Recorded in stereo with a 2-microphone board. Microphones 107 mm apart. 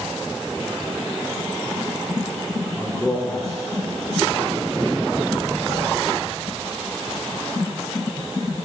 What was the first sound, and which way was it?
A man speaking, 5° right (ahead or behind).